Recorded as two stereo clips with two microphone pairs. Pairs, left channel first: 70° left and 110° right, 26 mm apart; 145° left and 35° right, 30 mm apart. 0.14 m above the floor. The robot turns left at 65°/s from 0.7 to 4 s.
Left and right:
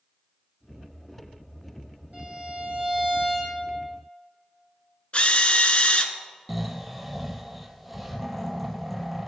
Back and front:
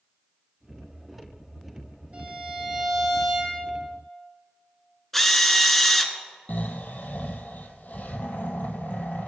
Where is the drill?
65° left, 0.9 m.